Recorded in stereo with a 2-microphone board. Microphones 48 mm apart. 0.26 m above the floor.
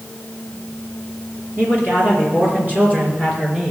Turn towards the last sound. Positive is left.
turn(degrees=-30)  # may be behind; listen again after turning